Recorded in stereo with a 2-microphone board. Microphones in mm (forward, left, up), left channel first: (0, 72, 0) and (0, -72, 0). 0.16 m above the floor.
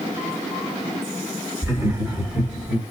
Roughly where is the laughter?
Right.